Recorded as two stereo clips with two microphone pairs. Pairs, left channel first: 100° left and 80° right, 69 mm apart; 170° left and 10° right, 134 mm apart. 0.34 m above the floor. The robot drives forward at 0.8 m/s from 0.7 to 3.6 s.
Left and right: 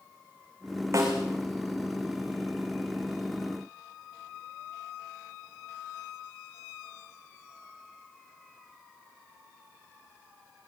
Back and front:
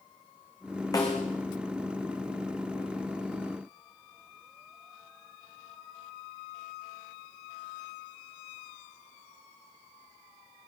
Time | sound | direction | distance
0.9 | a snare drum | 125° right | 7.5 m